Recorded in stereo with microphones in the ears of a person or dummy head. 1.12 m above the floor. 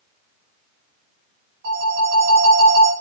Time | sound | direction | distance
1.6 | a phone ringing | 65° right (ahead or behind) | 1.5 m